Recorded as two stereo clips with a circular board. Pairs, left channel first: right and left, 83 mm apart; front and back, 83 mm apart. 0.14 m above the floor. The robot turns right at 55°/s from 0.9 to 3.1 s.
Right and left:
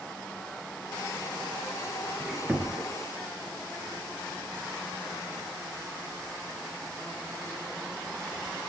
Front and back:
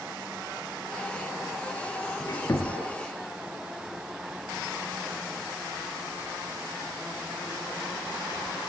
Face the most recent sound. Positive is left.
turn(degrees=55)